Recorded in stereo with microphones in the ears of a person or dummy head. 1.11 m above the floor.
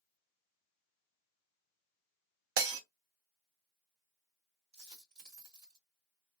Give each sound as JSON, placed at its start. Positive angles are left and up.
{"t": 2.6, "sound": "breaking glass", "side_deg": -65, "distance_m": 0.7}
{"t": 4.7, "sound": "a dropped coin", "side_deg": -50, "distance_m": 1.9}